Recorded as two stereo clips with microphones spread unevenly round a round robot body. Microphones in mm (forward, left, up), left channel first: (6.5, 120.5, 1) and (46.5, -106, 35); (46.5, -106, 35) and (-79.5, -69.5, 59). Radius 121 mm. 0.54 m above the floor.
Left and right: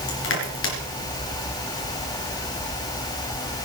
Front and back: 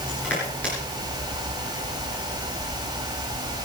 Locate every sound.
0.1 s crushing: 65° left, 3.5 m